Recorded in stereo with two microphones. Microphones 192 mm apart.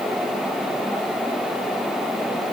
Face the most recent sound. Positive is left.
No sound to turn to.